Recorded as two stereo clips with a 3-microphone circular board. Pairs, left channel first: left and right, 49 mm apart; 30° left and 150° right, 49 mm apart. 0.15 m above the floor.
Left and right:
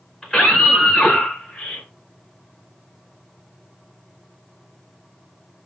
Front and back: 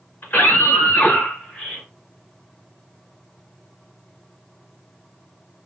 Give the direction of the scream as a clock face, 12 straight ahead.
12 o'clock.